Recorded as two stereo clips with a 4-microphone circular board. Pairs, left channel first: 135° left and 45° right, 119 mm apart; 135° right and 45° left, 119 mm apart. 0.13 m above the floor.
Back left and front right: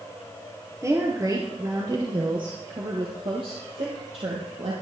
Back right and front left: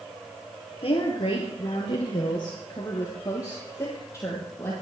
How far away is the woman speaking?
About 2.5 m.